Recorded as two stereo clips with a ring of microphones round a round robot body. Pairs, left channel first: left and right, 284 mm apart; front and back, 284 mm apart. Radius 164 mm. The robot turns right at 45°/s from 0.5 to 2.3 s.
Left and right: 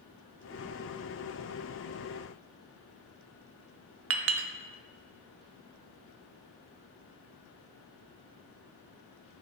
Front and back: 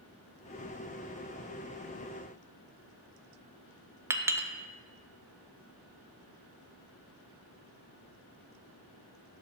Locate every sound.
4.1 s a clink: 100° right, 0.6 m